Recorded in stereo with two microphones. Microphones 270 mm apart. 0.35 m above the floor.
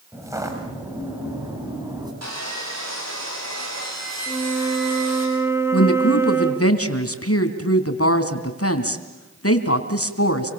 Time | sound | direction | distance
0.1 | footsteps | 10° right (ahead or behind) | 9 m
2.2 | sawing | 70° right (ahead or behind) | 6.5 m
4.3 | a flute | 10° right (ahead or behind) | 1.8 m
5.7 | a woman speaking | 60° left (ahead or behind) | 3 m